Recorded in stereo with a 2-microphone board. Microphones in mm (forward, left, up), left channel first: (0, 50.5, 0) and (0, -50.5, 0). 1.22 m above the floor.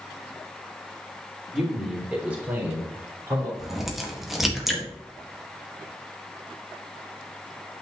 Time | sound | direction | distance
1.5 | a man speaking | centre (ahead or behind) | 3.5 m
3.6 | a crack | centre (ahead or behind) | 1.8 m